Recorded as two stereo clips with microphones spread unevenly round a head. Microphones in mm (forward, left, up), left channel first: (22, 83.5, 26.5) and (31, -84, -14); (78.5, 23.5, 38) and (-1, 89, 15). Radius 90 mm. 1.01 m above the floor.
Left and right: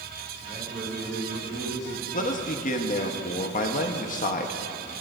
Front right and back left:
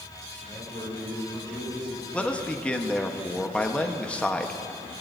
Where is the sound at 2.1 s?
45° left, 1.2 m.